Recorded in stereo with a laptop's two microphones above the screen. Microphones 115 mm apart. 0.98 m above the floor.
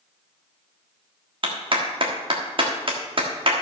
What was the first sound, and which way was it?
A clap, 50° right (ahead or behind).